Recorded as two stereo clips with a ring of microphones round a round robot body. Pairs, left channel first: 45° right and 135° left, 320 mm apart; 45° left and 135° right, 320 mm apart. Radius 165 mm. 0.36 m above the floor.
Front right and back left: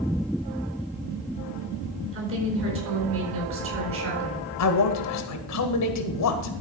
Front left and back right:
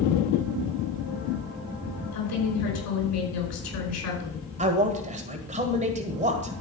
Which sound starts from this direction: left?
A woman speaking, at 2.1 s.